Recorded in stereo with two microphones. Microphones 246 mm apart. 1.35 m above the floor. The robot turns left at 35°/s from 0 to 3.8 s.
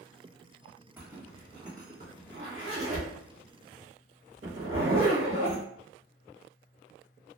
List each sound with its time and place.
1.0 s a zipper: 10° right (ahead or behind), 1.2 m; by 5.6 s 60° right (ahead or behind), 1.2 m